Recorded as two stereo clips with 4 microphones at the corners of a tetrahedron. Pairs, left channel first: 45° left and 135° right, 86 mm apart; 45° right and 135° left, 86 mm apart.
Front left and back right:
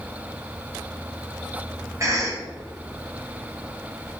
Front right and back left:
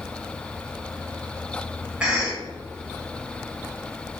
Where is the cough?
155° right, 1.1 m.